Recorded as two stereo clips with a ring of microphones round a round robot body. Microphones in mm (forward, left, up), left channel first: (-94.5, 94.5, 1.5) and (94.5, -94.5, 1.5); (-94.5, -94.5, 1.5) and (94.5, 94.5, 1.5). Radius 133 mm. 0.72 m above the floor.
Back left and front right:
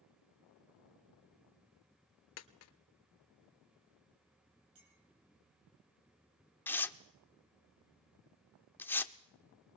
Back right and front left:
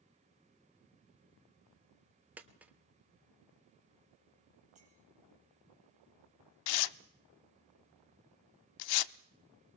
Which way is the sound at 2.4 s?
130° left.